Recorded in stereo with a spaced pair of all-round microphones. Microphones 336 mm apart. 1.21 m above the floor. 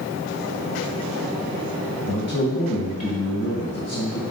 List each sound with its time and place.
2.1 s a man speaking: 45° left (ahead or behind), 1.3 m